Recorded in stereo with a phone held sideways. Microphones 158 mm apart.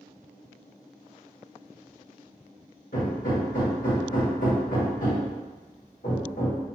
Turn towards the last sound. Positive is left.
turn(degrees=60)  # may be behind; listen again after turning